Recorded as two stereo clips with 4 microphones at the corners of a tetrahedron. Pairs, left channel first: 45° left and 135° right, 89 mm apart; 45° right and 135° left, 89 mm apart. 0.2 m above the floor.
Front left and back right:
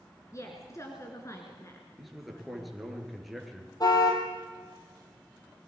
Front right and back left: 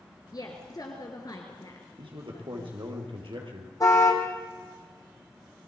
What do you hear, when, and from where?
0.3 s a woman speaking: 5° right, 2.5 m
2.0 s a man speaking: 135° left, 4 m
3.8 s a car horn: 5° left, 3 m